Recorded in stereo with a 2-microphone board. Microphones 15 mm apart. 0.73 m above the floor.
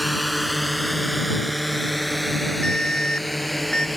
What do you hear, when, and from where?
0.0 s a drone: 5° right (ahead or behind); by 4.0 s centre (ahead or behind)
2.6 s an alarm: 55° left (ahead or behind)